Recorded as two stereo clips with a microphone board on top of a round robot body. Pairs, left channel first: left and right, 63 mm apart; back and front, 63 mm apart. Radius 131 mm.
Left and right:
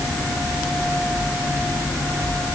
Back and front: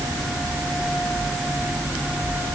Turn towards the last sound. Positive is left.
No sound to turn to.